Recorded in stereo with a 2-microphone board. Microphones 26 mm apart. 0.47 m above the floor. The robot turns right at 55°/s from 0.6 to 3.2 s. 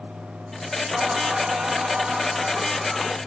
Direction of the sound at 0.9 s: 115° right.